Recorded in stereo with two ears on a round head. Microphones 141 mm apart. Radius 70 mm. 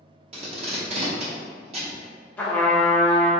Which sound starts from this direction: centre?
A trumpet, at 2.4 s.